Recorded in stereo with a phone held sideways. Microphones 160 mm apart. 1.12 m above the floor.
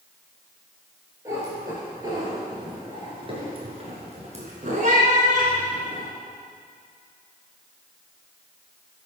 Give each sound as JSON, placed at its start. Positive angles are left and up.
{"t": 1.2, "sound": "a cat meowing", "side_deg": -20, "distance_m": 3.5}